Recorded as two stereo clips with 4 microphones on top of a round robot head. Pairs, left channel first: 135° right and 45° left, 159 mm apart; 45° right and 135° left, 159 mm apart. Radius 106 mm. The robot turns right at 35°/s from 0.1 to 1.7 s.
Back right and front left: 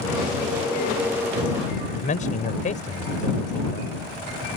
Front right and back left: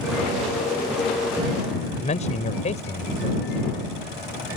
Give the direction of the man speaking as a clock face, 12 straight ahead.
3 o'clock.